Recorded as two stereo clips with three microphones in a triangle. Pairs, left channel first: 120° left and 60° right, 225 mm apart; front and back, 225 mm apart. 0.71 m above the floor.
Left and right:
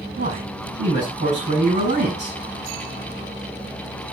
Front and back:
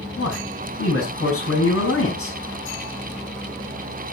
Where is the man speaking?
15° right, 5 m.